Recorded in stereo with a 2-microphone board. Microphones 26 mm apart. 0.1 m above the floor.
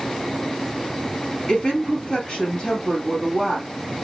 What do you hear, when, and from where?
1.5 s a woman speaking: 40° left (ahead or behind), 2.0 m